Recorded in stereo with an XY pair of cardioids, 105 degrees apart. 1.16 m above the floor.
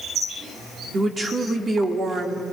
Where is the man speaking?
35° right, 3 m.